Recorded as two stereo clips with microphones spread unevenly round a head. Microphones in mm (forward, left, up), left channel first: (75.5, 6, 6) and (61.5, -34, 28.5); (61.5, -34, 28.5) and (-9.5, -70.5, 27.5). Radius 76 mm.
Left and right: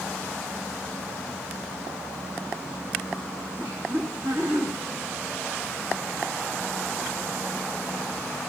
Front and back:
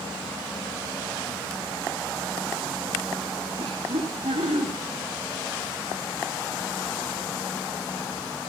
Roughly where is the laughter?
Behind.